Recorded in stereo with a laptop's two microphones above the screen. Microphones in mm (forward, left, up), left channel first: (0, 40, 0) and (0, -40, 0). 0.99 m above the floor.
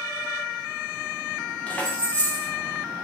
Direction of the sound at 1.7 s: 20° left (ahead or behind).